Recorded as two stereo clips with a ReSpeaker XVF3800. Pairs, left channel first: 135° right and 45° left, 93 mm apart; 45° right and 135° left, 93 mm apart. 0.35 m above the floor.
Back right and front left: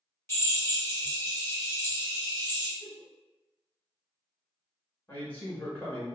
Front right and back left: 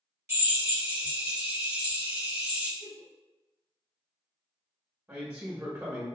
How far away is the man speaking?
About 1.1 m.